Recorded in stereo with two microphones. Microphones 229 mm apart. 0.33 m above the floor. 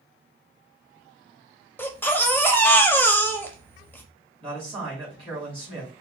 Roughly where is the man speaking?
Right.